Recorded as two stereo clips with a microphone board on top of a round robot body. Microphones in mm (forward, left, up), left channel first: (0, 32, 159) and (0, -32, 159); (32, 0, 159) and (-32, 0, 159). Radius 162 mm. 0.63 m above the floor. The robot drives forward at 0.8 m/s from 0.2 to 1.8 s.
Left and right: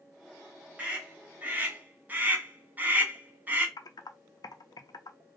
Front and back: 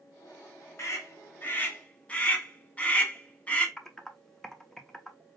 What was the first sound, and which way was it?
A scream, 25° right.